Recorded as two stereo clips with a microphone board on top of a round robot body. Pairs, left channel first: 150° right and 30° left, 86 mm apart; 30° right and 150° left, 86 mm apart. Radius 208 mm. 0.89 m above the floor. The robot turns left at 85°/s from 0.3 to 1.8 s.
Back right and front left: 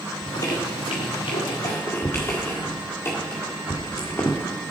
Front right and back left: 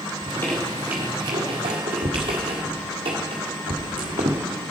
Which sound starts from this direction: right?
A squeak, at 0.2 s.